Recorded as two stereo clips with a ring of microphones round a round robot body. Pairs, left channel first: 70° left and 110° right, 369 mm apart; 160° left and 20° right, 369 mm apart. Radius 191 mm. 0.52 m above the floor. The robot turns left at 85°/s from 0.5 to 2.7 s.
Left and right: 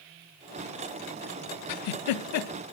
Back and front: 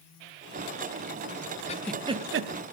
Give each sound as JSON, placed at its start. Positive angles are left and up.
{"t": 1.7, "sound": "a giggle", "azimuth_deg": 85, "distance_m": 0.7}